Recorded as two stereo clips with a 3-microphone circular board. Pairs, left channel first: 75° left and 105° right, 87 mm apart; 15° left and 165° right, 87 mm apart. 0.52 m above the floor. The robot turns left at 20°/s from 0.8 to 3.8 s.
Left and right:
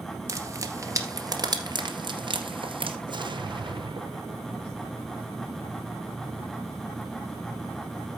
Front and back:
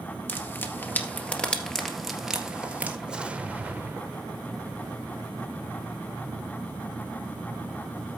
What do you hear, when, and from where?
0.3 s frying: 50° right, 1.9 m; by 3.0 s 95° right, 1.9 m
3.1 s an explosion: 85° right, 0.9 m; by 5.0 s 100° right, 0.9 m